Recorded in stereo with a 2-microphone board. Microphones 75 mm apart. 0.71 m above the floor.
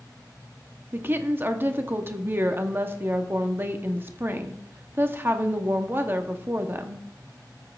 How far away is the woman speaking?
About 0.8 m.